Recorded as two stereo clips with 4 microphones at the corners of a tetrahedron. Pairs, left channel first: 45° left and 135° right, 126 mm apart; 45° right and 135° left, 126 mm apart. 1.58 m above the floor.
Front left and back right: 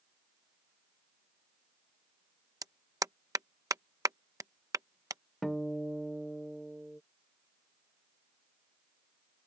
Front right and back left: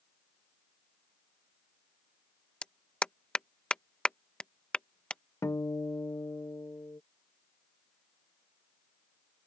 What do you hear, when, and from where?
2.6 s a clap: 120° right
5.4 s a guitar: 35° right